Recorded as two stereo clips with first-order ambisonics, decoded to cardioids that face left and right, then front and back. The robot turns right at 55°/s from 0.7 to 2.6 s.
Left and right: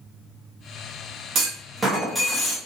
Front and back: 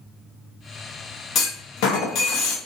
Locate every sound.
1.4 s a clunk: 40° right, 0.9 m; by 2.6 s 25° left, 0.9 m